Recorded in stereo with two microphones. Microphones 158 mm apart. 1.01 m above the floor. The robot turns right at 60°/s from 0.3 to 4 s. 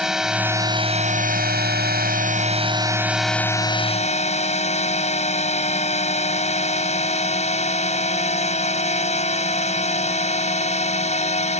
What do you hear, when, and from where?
0.0 s a drone: 175° right; by 11.6 s 45° left